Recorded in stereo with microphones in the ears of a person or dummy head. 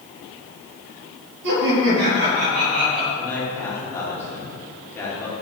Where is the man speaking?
15° left (ahead or behind), 3 m.